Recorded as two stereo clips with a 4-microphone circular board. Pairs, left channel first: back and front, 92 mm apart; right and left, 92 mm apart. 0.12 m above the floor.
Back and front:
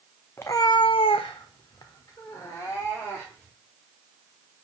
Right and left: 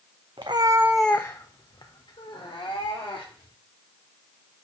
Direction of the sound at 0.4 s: 115° left.